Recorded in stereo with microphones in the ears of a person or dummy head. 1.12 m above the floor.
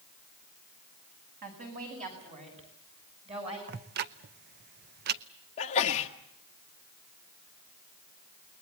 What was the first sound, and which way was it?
A woman speaking, 45° right (ahead or behind).